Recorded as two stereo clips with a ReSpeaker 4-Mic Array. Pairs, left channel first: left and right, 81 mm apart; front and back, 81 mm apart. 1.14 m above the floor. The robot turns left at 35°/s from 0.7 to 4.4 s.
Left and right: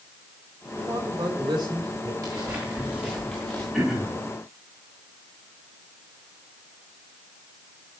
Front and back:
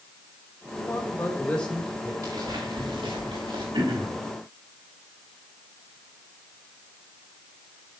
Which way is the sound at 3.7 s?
170° right.